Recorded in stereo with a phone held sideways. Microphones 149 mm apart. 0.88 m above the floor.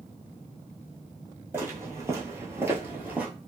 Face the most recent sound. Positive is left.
turn(degrees=-10)  # may be behind; listen again after turning